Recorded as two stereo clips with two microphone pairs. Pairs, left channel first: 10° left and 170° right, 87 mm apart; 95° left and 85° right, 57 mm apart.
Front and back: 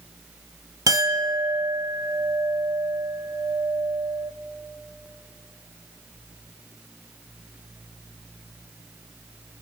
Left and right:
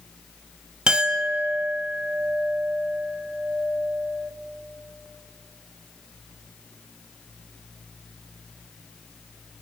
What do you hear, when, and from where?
0.9 s a clink: 150° right, 1.0 m